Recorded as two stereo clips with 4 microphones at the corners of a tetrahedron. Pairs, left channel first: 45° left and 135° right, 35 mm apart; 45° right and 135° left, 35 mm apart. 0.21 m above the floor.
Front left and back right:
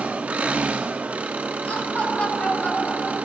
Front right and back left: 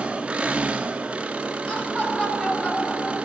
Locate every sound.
0.0 s an engine running: 170° right, 0.9 m
1.7 s laughter: 10° left, 4 m